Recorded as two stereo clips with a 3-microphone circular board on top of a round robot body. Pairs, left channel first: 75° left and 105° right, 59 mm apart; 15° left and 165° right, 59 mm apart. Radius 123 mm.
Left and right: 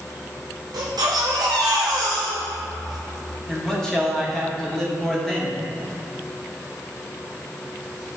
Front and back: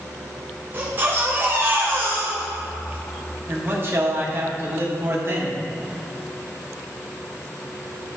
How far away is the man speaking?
About 1.6 m.